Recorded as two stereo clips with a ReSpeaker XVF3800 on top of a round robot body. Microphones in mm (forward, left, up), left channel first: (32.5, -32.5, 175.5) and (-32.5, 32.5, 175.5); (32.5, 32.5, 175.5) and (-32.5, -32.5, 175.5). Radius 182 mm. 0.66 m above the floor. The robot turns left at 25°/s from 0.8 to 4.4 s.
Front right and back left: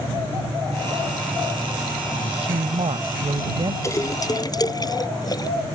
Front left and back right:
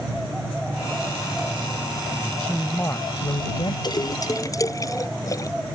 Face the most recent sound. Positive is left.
turn(degrees=-5)